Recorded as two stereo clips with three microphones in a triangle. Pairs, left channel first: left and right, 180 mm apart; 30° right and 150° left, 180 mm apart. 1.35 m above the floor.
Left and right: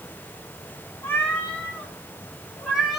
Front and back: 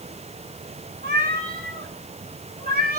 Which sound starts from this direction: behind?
A cat meowing, at 1.0 s.